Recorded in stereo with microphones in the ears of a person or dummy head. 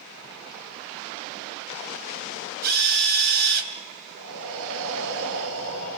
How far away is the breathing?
About 8.5 m.